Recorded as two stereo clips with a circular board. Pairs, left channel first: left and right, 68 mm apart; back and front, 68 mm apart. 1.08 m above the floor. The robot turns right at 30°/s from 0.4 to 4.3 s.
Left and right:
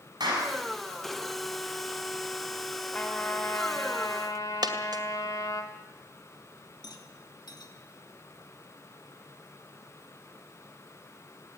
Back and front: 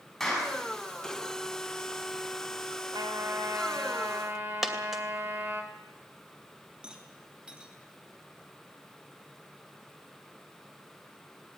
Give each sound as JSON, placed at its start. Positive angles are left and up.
{"t": 0.2, "sound": "a clap", "azimuth_deg": -95, "distance_m": 7.0}
{"t": 2.9, "sound": "a trumpet", "azimuth_deg": 15, "distance_m": 2.5}
{"t": 4.6, "sound": "a dropped coin", "azimuth_deg": -85, "distance_m": 2.0}
{"t": 6.8, "sound": "a rattle", "azimuth_deg": 75, "distance_m": 2.5}